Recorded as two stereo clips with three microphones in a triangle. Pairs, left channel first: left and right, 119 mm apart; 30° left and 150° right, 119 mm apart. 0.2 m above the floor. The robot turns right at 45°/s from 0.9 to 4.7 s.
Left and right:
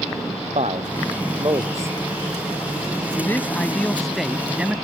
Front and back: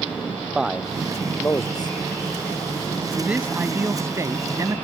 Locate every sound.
0.6 s a man speaking: 65° right; by 2.0 s 20° right
3.2 s a man speaking: 135° left; by 4.8 s 155° right